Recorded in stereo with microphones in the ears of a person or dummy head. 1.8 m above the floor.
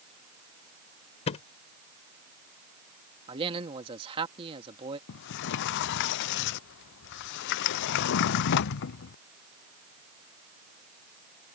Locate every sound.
1.3 s a thud: 35° left (ahead or behind)
3.3 s a man speaking: 35° right (ahead or behind)
5.1 s a sliding door: 70° left (ahead or behind)